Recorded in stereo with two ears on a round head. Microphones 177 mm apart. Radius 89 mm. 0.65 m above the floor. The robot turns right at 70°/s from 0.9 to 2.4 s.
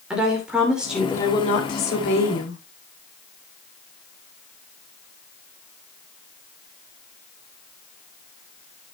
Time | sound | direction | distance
0.1 | a woman speaking | 5° right | 2.5 m